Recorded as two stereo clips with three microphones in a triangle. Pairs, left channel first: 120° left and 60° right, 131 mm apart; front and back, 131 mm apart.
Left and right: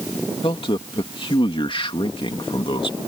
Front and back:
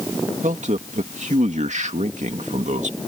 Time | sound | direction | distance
0.4 | a man speaking | 165° left | ?